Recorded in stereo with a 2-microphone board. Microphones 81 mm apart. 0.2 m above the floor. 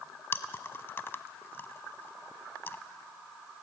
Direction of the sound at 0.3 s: 30° left (ahead or behind).